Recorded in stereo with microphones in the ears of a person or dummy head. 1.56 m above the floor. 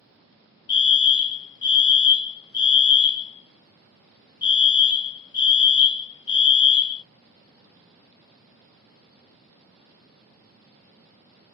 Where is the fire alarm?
25° left (ahead or behind), 0.6 m.